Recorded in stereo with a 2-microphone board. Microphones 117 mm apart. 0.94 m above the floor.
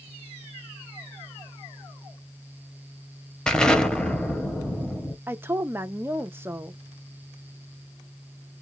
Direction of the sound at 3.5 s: 5° left (ahead or behind).